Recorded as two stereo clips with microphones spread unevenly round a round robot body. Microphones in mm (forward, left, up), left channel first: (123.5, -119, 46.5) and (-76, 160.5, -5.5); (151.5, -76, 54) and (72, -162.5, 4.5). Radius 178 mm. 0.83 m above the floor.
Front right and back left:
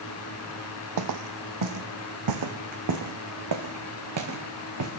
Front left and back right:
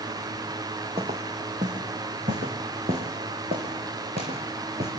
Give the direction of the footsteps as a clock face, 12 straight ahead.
7 o'clock.